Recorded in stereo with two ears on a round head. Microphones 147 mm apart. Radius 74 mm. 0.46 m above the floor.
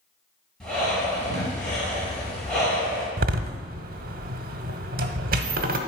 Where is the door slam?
60° right (ahead or behind), 0.9 m.